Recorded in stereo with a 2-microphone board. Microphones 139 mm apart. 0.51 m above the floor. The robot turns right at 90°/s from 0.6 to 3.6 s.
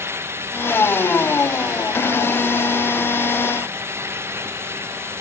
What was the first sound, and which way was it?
Only background noise.